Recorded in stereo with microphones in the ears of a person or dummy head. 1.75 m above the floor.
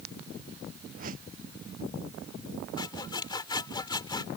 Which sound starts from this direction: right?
A whoosh, at 1.0 s.